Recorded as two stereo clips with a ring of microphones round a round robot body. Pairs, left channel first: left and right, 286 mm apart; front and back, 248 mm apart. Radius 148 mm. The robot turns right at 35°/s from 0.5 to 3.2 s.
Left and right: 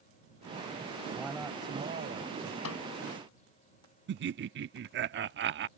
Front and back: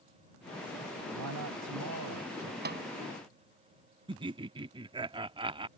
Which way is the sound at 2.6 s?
130° left.